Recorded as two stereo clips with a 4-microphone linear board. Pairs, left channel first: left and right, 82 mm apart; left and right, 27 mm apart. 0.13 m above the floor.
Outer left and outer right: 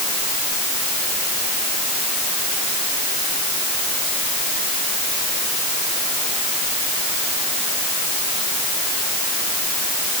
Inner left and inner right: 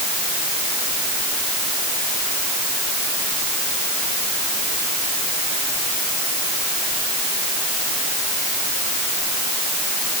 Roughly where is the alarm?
No alarm in this recording.